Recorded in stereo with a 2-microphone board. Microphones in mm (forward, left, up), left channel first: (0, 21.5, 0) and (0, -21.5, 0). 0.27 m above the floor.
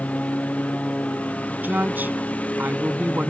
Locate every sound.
0.0 s a lawn mower: 30° left (ahead or behind)
1.6 s a woman speaking: 45° right (ahead or behind)